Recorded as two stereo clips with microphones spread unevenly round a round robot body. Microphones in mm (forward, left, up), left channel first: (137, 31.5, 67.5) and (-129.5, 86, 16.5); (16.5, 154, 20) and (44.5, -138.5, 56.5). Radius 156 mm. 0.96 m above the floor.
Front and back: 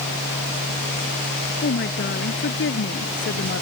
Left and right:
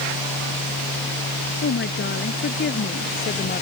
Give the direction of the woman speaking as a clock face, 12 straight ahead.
11 o'clock.